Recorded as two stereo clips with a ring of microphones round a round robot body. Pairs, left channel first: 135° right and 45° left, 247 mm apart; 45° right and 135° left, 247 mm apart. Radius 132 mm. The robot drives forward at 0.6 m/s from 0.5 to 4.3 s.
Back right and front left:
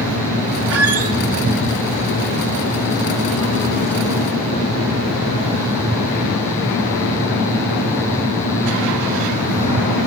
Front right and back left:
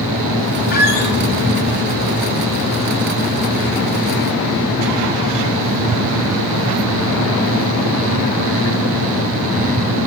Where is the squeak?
10° left, 1.0 m.